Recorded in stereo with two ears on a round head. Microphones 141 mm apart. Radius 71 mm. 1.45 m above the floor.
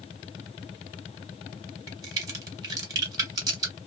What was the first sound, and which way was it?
A crack, 25° right (ahead or behind).